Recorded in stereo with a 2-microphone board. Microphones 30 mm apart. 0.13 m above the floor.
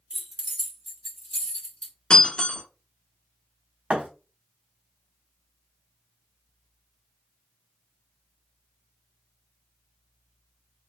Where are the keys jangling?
40° right (ahead or behind), 1.2 m; by 1.9 s 35° left (ahead or behind), 1.2 m.